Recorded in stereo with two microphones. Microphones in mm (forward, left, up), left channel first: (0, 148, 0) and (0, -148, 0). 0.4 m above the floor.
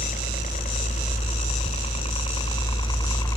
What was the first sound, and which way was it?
A helicopter, 25° left (ahead or behind).